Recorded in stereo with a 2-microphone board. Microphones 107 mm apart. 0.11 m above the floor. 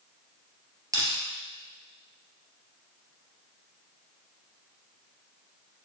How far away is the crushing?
About 2.5 m.